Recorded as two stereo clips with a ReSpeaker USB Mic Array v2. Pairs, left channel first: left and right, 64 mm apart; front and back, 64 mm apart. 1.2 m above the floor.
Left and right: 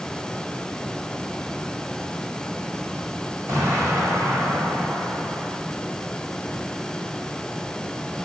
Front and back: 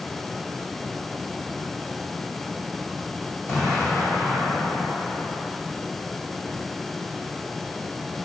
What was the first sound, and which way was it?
An explosion, 50° right.